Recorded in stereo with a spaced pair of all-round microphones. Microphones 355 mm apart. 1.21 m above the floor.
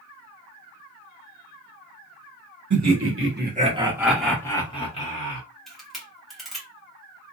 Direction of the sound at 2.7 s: 55° right (ahead or behind).